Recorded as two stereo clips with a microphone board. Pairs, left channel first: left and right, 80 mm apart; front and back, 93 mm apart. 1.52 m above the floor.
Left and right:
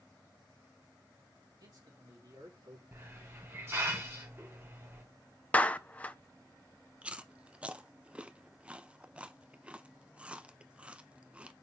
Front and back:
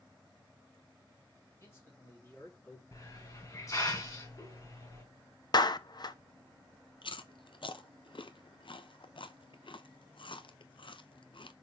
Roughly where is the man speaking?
Ahead right.